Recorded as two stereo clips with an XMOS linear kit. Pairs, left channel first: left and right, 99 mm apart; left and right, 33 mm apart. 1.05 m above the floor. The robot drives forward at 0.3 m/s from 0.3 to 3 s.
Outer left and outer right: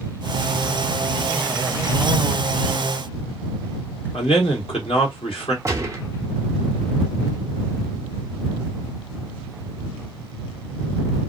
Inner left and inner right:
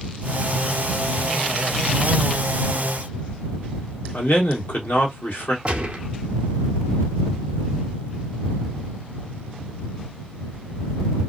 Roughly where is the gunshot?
Right.